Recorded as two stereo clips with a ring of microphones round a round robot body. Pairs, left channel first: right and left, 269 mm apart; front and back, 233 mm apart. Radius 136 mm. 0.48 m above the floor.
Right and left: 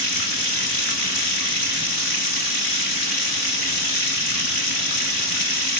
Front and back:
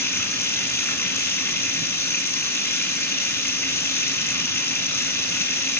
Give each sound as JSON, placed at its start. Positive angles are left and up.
{"t": 0.0, "sound": "running water", "azimuth_deg": -80, "distance_m": 2.5}